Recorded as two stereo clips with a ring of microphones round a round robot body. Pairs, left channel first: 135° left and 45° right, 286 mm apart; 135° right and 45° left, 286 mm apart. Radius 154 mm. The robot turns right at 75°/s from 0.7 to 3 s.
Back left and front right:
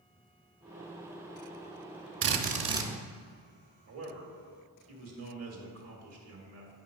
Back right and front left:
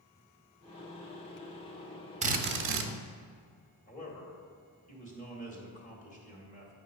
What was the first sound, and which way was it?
A drill, 15° right.